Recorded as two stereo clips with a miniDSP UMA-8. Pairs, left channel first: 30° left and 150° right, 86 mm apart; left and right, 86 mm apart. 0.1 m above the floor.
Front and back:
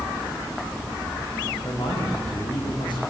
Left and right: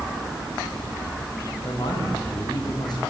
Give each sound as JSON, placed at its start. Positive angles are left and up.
{"t": 1.6, "sound": "a man speaking", "azimuth_deg": 55, "distance_m": 7.5}